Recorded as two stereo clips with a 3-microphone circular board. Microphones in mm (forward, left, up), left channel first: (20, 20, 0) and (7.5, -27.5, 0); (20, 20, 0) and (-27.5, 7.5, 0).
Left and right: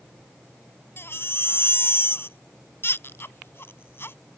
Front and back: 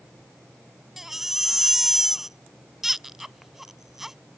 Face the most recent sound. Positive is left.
turn(degrees=115)